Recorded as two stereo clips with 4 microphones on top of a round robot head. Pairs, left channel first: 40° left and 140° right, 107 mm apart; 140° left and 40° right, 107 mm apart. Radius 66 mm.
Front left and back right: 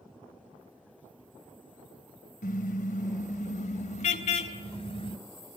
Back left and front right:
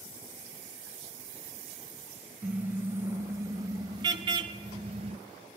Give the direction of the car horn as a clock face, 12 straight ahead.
11 o'clock.